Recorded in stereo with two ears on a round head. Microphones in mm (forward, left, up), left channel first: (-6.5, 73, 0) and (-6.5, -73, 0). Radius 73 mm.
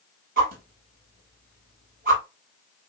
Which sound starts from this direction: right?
A whoosh, at 0.4 s.